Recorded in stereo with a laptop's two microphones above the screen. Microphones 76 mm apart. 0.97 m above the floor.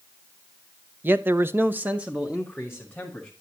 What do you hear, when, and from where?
1.0 s a man speaking: 25° right (ahead or behind), 0.6 m; by 3.3 s 5° right (ahead or behind), 1.5 m